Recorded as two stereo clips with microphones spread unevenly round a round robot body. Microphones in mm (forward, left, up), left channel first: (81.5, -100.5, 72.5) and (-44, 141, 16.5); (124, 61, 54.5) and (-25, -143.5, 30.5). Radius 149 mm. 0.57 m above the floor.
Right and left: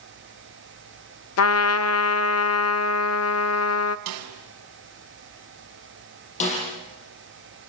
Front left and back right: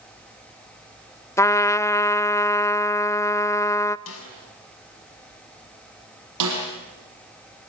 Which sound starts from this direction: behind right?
A snare drum, at 6.4 s.